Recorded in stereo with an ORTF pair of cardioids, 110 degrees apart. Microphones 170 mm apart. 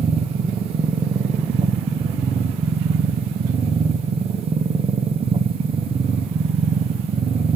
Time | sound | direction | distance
0.0 | a machine running | 35° right | 0.7 m